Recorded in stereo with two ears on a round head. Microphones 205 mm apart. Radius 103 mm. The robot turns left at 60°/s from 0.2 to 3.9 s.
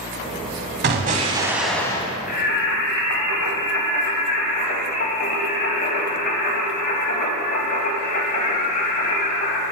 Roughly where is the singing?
Behind left.